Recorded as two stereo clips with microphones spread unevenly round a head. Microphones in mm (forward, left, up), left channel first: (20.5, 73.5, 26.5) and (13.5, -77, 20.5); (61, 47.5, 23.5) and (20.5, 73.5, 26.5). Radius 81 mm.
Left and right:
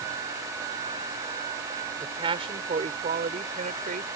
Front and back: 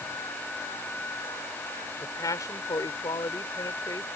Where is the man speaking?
30° right; by 4.1 s 55° right.